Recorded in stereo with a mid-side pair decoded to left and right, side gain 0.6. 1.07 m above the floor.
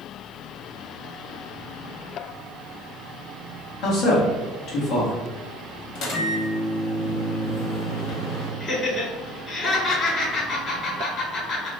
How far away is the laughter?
About 1.7 m.